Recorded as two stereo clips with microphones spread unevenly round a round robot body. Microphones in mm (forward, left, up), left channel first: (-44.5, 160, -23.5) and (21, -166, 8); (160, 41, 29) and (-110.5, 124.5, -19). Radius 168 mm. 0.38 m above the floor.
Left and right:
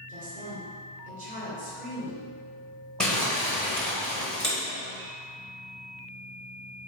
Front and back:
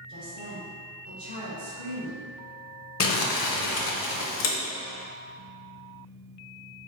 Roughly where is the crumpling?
Ahead.